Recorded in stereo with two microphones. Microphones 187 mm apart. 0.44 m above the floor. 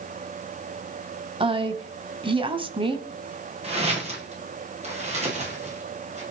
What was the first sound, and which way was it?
A woman speaking, 30° right (ahead or behind).